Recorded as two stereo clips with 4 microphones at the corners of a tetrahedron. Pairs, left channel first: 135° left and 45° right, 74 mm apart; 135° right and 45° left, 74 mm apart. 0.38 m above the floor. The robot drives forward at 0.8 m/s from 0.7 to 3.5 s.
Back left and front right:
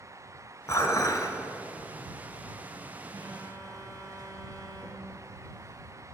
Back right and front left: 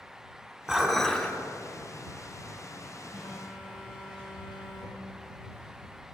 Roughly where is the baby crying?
I don't hear a baby crying.